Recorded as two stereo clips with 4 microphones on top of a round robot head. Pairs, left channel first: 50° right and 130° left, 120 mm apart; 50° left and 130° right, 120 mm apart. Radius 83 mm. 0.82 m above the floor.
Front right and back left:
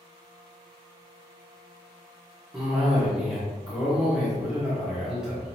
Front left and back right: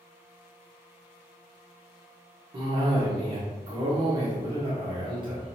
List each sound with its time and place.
2.5 s a cough: 150° right, 1.3 m